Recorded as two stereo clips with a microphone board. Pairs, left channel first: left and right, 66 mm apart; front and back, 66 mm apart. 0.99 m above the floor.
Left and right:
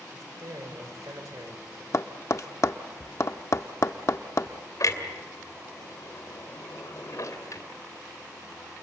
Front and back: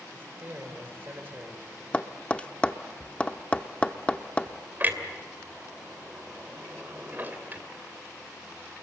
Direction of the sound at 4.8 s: 120° left.